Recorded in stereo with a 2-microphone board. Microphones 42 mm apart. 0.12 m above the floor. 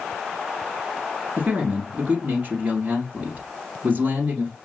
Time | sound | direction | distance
1.4 | a man speaking | 40° right (ahead or behind) | 1.8 m